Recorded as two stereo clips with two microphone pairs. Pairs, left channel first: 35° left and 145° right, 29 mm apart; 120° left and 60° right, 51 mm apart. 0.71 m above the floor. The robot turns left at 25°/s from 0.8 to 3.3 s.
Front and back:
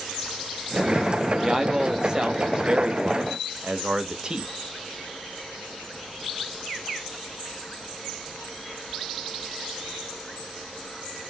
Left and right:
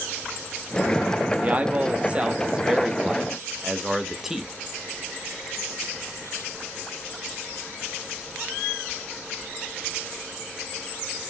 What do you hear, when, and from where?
1.4 s a man speaking: 90° right, 0.6 m; by 4.5 s 135° right, 0.6 m